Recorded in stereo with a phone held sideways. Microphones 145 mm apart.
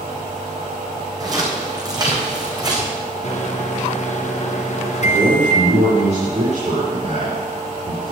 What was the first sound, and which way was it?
Footsteps, 25° right (ahead or behind).